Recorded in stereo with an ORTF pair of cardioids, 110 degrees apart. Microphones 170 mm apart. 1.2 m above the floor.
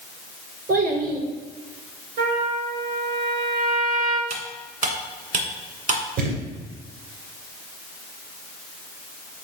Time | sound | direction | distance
0.7 | a child speaking | 60° right | 2.5 m
2.2 | a trumpet | 65° right | 2.5 m
4.3 | cutlery clinking | 55° right | 1.8 m
6.2 | a thud | 60° right | 2.5 m